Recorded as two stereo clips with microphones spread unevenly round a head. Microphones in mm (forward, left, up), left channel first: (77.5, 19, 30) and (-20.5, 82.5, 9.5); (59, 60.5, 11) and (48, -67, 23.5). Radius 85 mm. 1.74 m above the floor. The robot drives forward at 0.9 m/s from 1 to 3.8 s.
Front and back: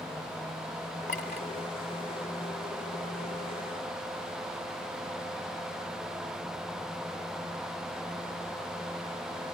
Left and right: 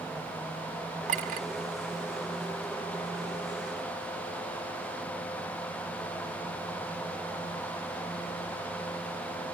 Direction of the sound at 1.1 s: 80° right.